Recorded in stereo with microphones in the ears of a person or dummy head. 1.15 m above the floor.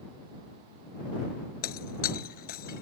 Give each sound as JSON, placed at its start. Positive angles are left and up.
{"t": 1.6, "sound": "breaking glass", "side_deg": 55}